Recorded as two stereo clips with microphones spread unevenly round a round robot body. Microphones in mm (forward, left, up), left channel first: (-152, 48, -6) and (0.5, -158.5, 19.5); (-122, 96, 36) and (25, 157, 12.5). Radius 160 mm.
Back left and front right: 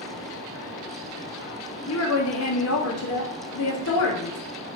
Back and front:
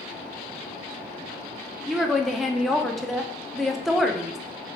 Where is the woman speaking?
110° left, 0.8 m.